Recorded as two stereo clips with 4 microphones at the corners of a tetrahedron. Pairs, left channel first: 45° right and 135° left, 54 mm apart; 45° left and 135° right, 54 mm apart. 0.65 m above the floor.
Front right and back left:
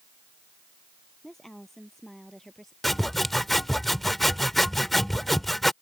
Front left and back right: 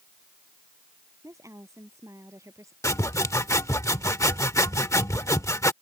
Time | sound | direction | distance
1.2 | a woman speaking | 130° right | ?
2.8 | sawing | 45° left | ?